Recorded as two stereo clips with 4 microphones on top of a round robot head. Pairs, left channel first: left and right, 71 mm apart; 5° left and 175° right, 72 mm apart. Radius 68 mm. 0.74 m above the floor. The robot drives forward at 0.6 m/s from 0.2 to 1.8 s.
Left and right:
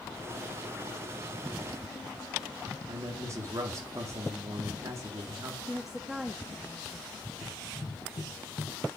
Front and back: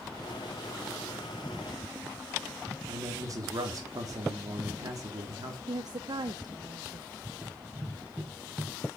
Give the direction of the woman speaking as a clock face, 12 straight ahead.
6 o'clock.